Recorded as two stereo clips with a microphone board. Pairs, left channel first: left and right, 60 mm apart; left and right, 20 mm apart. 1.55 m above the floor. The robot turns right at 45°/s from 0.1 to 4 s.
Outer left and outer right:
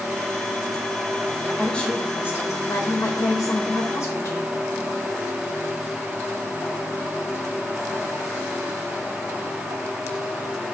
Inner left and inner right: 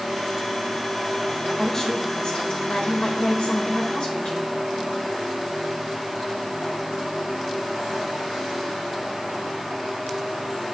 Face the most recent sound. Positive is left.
turn(degrees=120)